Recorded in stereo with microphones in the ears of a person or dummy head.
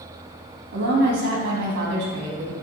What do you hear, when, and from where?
0.7 s a woman speaking: 55° right (ahead or behind), 2.5 m